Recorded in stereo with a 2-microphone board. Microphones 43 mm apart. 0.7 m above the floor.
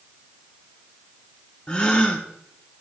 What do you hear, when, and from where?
1.7 s a gasp: 20° left (ahead or behind), 1.5 m